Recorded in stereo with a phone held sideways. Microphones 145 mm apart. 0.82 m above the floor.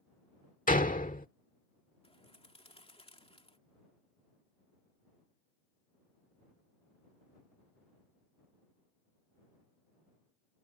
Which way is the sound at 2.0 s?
40° left (ahead or behind).